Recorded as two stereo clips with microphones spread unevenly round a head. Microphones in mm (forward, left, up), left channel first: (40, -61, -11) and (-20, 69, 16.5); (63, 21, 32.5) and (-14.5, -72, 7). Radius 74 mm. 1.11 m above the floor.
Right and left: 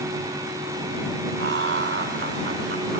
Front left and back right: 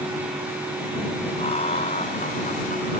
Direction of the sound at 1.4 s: 105° left.